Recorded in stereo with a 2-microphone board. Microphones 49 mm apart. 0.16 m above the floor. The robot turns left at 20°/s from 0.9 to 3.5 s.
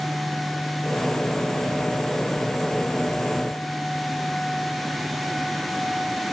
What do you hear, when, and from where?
Only background noise.